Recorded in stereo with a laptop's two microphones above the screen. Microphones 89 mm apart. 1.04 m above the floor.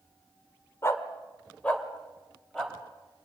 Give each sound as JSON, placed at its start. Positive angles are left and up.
{"t": 0.8, "sound": "a dog barking", "side_deg": 30, "distance_m": 1.5}